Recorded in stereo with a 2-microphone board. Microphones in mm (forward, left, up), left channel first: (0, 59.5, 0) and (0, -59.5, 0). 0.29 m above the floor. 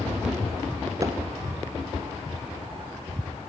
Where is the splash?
25° right (ahead or behind), 1.2 m.